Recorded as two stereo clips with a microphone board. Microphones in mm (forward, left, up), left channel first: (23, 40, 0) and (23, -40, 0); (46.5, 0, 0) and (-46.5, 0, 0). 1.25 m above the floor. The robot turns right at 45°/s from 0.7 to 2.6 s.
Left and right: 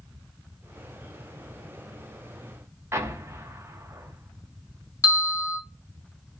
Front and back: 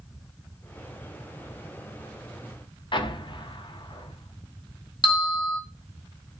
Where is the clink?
I don't hear a clink.